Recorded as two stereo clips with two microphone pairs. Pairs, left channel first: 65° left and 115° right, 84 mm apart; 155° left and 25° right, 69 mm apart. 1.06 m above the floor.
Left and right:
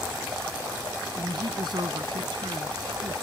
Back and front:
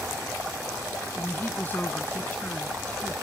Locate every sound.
1.2 s a woman speaking: 145° right; by 3.1 s 135° right